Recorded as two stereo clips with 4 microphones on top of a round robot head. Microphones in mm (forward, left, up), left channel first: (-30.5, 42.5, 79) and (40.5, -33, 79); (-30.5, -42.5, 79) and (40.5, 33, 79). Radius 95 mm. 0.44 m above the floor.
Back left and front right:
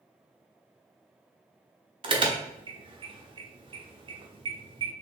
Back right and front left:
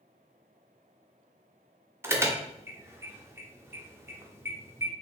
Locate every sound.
2.0 s an alarm: 15° right, 1.1 m